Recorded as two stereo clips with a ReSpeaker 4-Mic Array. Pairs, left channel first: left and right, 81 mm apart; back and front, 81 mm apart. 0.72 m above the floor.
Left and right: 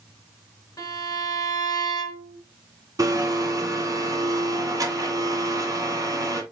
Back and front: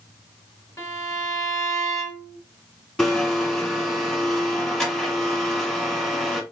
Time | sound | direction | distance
0.8 | a violin | 125° left | 2 m
3.0 | a blender | 95° right | 1.5 m